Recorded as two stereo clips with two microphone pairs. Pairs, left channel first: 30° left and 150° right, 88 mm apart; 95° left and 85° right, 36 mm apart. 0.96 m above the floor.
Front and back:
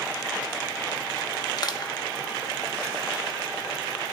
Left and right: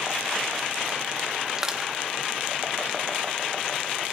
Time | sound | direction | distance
1.6 | crushing | 5° right | 1.4 m